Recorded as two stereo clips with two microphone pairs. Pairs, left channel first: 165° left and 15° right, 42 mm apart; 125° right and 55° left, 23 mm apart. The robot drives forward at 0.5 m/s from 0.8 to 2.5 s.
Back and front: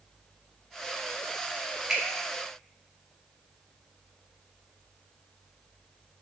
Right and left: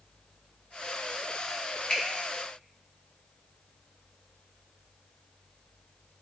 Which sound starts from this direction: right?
A finger snap, at 1.9 s.